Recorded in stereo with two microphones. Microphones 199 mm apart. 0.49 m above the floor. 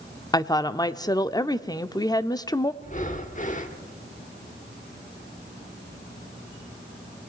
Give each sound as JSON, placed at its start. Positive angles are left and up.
{"t": 0.3, "sound": "a woman speaking", "side_deg": 20, "distance_m": 0.7}
{"t": 2.8, "sound": "breathing", "side_deg": 40, "distance_m": 1.3}